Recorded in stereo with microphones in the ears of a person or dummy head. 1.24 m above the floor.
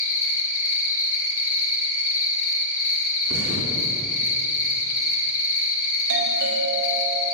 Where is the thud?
50° right (ahead or behind), 3 m.